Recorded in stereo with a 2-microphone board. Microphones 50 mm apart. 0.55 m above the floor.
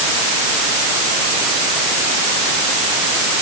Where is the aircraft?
I don't hear an aircraft.